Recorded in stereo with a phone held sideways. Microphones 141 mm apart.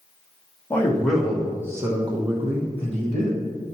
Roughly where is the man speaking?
Centre.